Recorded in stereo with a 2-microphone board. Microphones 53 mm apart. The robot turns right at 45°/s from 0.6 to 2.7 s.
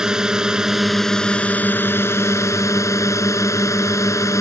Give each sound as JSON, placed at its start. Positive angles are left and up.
{"t": 0.0, "sound": "a drone", "azimuth_deg": -15}